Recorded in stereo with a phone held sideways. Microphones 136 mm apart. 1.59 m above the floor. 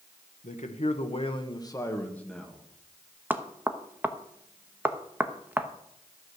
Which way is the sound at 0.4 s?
65° left (ahead or behind).